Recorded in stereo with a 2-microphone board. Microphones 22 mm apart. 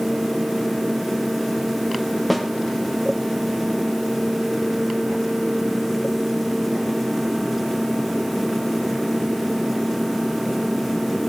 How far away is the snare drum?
About 0.7 m.